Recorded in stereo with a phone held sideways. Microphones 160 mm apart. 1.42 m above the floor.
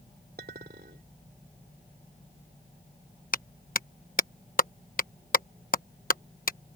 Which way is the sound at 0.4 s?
70° right (ahead or behind).